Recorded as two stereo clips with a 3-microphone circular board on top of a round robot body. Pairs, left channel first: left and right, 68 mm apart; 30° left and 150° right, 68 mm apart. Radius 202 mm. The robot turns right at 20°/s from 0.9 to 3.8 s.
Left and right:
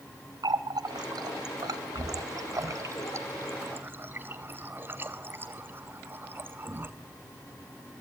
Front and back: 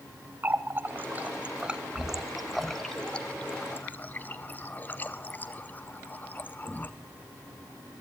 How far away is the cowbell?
I don't hear a cowbell.